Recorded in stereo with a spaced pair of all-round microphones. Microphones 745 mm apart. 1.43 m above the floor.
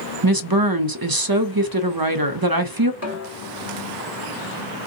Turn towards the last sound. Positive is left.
turn(degrees=-20)  # may be behind; listen again after turning